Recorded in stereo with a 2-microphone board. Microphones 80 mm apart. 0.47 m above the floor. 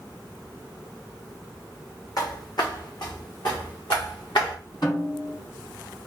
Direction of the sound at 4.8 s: 70° left (ahead or behind).